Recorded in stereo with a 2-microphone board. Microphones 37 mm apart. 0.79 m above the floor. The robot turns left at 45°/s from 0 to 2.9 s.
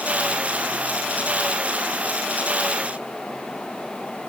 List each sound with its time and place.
Only background noise.